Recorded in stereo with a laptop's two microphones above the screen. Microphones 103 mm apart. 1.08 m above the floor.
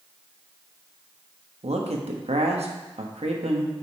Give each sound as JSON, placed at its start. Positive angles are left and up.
{"t": 1.6, "sound": "a man speaking", "side_deg": -85, "distance_m": 1.2}